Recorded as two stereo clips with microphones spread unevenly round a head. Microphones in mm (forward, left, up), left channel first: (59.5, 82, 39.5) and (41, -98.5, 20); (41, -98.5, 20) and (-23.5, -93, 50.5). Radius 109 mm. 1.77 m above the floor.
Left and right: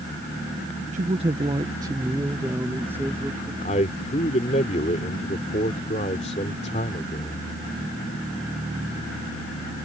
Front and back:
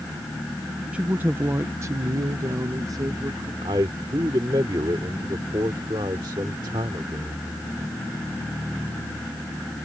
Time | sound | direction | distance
0.9 | a woman speaking | 150° right | ?
3.6 | a man speaking | 145° left | ?